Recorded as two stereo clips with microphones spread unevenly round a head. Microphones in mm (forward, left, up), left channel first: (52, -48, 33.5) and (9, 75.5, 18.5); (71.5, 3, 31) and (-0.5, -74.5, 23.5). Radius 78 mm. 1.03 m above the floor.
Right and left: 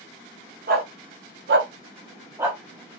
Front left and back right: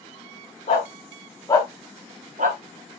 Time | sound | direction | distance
0.7 | a dog barking | 100° left | 1.4 m